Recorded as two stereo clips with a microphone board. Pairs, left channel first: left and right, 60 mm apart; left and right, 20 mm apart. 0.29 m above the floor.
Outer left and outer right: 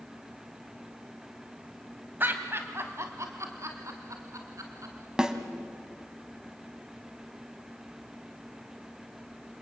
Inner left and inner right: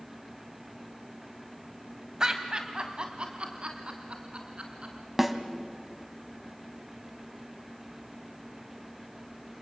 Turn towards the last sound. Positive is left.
turn(degrees=-10)  # may be behind; listen again after turning